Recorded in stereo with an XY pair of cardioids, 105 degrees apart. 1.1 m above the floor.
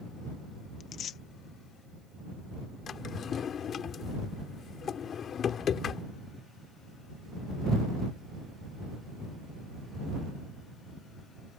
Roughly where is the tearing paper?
Ahead left.